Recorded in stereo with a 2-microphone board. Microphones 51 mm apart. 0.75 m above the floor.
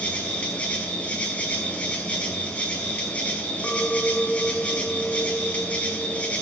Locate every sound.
0.0 s an insect: 25° left (ahead or behind), 5 m
3.6 s a clink: 25° left (ahead or behind), 1.7 m